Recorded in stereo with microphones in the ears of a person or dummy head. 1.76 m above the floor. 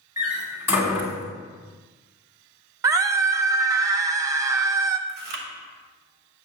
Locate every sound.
0.2 s a door slam: 15° right (ahead or behind), 2 m
2.8 s a scream: 15° right (ahead or behind), 0.6 m
5.1 s chewing: 55° right (ahead or behind), 0.9 m